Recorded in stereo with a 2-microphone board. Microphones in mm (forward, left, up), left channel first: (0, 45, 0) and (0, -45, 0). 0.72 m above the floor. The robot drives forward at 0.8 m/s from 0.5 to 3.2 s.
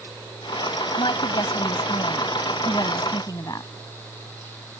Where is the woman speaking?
65° left (ahead or behind); by 3.7 s 45° left (ahead or behind).